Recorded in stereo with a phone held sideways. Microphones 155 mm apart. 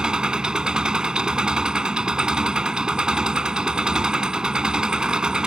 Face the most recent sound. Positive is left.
turn(degrees=-5)  # may be behind; listen again after turning